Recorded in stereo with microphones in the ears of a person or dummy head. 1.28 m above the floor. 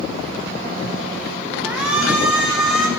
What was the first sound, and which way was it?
A shout, 5° right (ahead or behind).